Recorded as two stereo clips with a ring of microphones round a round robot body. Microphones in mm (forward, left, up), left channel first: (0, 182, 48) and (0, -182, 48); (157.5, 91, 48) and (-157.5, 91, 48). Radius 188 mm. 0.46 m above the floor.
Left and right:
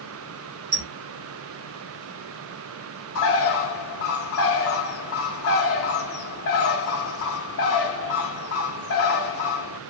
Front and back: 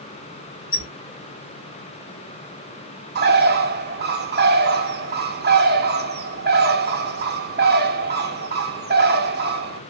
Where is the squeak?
60° right, 1.1 m.